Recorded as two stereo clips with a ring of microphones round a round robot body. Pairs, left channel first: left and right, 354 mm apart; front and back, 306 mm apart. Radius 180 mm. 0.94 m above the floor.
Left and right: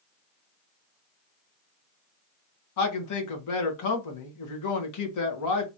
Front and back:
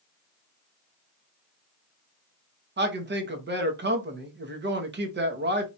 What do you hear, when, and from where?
2.8 s a man speaking: 125° left, 1.2 m